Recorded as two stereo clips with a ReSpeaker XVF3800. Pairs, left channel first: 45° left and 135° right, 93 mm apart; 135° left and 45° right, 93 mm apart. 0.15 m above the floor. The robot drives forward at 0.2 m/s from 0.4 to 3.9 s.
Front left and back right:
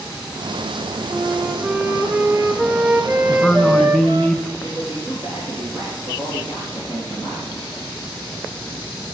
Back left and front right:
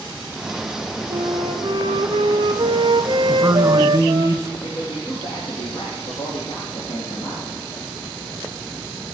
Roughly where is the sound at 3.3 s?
Ahead right.